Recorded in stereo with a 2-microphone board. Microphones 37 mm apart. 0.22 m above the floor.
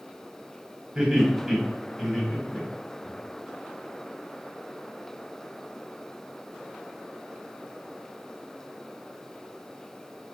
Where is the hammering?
I don't hear hammering.